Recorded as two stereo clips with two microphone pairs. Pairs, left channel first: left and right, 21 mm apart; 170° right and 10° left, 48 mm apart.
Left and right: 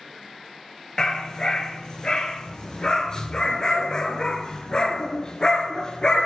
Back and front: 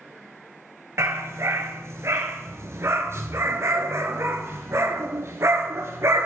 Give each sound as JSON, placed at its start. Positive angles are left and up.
{"t": 1.0, "sound": "a dog barking", "azimuth_deg": 30, "distance_m": 1.0}